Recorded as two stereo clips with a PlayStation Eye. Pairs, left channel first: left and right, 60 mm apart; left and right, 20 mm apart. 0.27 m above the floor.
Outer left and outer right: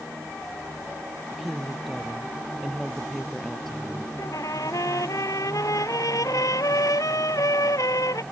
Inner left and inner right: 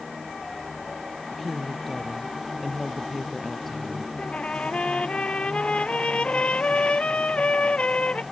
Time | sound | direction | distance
1.3 | a woman speaking | centre (ahead or behind) | ?
4.2 | a trumpet | 80° left | ?